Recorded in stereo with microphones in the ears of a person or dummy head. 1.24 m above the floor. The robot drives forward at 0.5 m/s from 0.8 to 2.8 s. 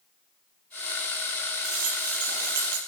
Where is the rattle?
50° right (ahead or behind), 6 m; by 2.8 s 55° right (ahead or behind), 6 m.